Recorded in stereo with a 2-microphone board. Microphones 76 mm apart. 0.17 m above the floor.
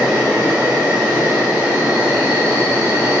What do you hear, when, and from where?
0.0 s an insect: 20° right (ahead or behind), 2.0 m